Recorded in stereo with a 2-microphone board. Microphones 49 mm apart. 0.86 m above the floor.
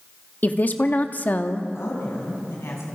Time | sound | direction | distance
0.4 | a woman speaking | 40° left (ahead or behind) | 1.2 m
1.8 | a woman speaking | 65° left (ahead or behind) | 7.5 m